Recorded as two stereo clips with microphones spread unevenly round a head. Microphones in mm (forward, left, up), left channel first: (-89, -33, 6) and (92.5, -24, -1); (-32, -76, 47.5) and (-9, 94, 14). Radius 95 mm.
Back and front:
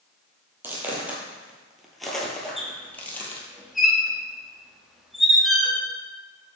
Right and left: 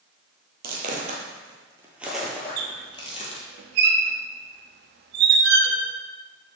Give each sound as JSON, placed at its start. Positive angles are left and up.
{"t": 0.6, "sound": "footsteps", "azimuth_deg": 80, "distance_m": 1.3}
{"t": 2.6, "sound": "a squeak", "azimuth_deg": 95, "distance_m": 0.6}